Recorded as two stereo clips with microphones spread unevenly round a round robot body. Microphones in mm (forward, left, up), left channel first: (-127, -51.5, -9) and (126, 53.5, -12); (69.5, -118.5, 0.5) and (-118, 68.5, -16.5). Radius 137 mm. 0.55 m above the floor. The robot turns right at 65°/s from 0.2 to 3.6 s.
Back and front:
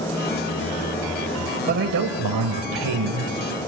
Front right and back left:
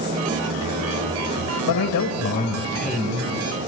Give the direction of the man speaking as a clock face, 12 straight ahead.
1 o'clock.